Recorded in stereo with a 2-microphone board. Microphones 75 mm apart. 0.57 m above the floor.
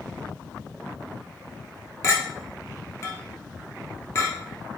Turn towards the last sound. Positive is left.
turn(degrees=35)  # may be behind; listen again after turning